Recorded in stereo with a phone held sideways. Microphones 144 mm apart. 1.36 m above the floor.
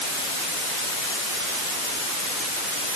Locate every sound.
Only background noise.